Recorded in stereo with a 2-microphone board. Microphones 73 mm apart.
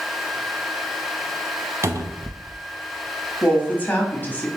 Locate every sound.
1.8 s a cupboard door: 45° right (ahead or behind), 0.6 m
3.4 s a woman speaking: 25° left (ahead or behind), 1.0 m